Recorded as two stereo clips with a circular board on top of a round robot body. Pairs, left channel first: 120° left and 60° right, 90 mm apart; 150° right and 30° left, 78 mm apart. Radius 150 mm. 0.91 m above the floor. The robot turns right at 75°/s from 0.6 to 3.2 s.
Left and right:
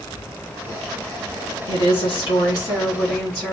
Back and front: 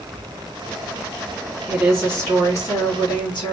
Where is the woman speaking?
105° left, 2.5 m; by 3.5 s 140° right, 2.5 m.